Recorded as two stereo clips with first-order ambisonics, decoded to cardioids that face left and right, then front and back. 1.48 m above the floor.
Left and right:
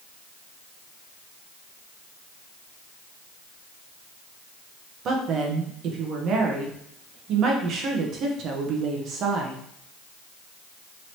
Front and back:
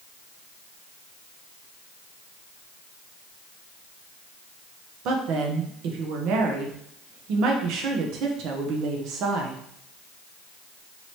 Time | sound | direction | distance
5.0 | a woman speaking | 145° right | 0.8 m